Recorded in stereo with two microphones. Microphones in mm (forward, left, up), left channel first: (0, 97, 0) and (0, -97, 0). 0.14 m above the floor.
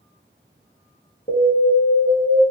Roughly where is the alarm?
Left.